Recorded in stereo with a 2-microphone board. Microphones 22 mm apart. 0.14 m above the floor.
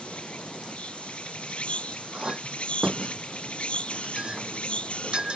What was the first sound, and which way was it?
An insect, 70° left (ahead or behind).